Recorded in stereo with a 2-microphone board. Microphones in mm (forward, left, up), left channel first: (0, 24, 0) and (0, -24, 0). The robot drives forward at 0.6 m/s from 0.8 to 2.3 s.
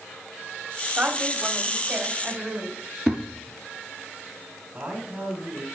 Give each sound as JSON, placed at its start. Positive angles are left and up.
{"t": 1.0, "sound": "a woman speaking", "side_deg": -30, "distance_m": 1.5}
{"t": 3.1, "sound": "a thud", "side_deg": -5, "distance_m": 2.0}
{"t": 4.7, "sound": "a man speaking", "side_deg": -20, "distance_m": 1.9}